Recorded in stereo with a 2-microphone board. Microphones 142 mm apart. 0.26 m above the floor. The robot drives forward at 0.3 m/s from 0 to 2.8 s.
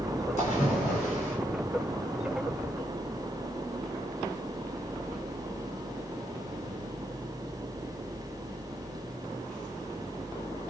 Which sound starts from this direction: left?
A splash, at 0.4 s.